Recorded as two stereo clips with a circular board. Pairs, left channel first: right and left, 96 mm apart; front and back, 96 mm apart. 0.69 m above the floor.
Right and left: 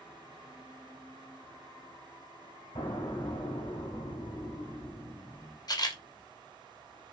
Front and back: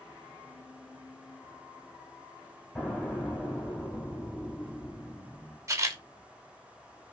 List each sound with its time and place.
2.8 s an explosion: 75° right, 2.5 m
5.7 s a camera shutter: 125° right, 0.6 m